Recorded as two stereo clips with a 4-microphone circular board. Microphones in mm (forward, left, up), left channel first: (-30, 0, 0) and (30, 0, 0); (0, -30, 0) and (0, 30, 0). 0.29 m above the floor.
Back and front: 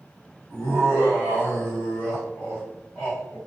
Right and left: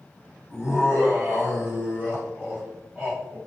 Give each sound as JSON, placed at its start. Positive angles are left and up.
{"t": 0.5, "sound": "laughter", "azimuth_deg": 150, "distance_m": 1.6}